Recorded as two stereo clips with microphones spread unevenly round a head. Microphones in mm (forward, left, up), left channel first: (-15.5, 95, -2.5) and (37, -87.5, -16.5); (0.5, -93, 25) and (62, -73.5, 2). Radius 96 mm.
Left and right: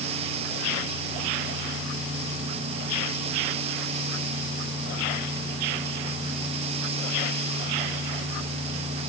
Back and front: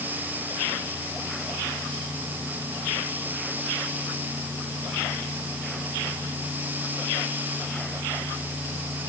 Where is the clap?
I don't hear a clap.